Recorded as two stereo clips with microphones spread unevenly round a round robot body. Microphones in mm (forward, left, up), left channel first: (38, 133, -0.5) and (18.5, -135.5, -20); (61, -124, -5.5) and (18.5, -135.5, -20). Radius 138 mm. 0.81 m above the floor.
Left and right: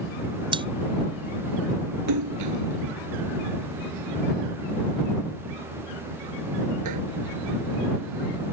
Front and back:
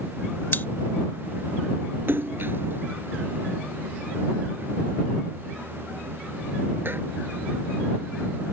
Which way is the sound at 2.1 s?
125° right.